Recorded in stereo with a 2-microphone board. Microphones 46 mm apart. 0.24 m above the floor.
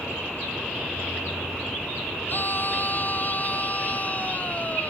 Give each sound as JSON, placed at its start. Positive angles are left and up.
{"t": 2.3, "sound": "a scream", "side_deg": 45}